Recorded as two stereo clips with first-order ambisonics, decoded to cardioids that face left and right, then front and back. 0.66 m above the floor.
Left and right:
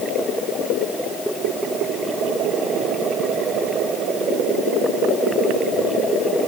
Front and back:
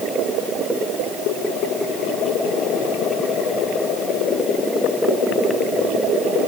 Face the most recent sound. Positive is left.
No sound to turn to.